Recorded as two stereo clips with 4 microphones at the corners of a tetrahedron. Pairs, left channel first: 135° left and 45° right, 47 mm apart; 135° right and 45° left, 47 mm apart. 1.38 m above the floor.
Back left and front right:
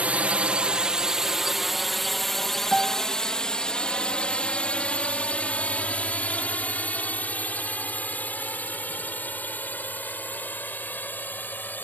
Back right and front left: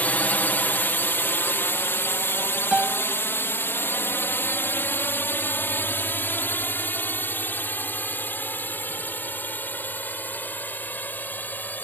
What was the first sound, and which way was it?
A drone, 95° right.